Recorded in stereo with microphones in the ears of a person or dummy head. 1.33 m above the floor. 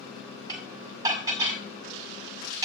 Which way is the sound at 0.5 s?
25° right (ahead or behind).